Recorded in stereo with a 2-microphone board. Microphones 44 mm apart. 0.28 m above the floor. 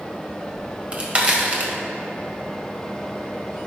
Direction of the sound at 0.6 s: 30° right (ahead or behind).